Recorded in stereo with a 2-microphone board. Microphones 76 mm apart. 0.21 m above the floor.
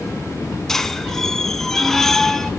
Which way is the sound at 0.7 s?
5° left (ahead or behind).